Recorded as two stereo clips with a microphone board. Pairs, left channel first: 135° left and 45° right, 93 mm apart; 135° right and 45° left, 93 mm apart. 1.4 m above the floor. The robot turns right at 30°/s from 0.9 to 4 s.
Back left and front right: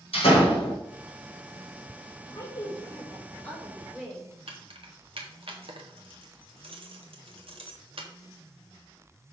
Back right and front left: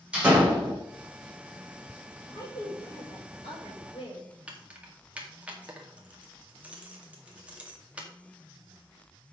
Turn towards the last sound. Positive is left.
turn(degrees=-30)